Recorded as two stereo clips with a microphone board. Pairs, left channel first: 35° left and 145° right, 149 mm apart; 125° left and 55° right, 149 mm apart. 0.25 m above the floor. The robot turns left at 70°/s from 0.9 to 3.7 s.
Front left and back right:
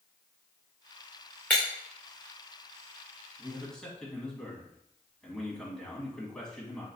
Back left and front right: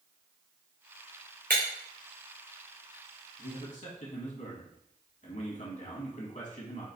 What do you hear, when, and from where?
1.5 s breaking glass: 45° right, 2 m; by 1.6 s 55° right, 2 m
3.4 s a man speaking: 140° left, 1.7 m; by 6.9 s 120° left, 1.7 m